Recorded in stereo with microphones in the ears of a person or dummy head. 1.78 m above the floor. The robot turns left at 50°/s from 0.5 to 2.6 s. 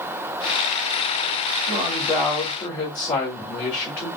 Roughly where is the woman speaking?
Behind.